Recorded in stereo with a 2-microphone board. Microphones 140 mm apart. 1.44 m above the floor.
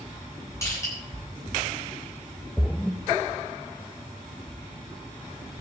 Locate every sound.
0.6 s crushing: 20° left (ahead or behind), 9 m
2.6 s a splash: centre (ahead or behind), 0.6 m